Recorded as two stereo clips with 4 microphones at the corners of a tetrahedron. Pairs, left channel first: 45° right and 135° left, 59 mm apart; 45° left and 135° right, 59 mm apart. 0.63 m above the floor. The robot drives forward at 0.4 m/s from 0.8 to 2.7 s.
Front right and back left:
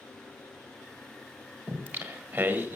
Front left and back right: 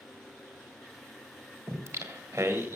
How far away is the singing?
About 1.7 m.